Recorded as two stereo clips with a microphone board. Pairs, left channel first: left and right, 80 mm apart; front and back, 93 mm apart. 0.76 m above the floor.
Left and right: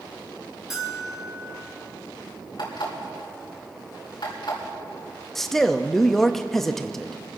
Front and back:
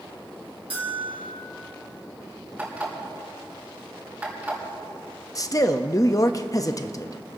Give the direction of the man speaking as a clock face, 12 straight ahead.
12 o'clock.